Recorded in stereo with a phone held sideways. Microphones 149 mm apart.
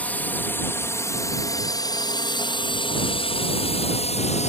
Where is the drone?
10° left (ahead or behind); by 4.5 s 50° left (ahead or behind).